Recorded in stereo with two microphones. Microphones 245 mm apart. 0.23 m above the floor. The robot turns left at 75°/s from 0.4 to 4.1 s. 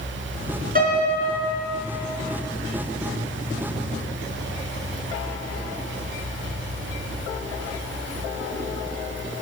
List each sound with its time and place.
0.8 s a piano: 140° right, 2.5 m; by 1.6 s 155° left, 2.5 m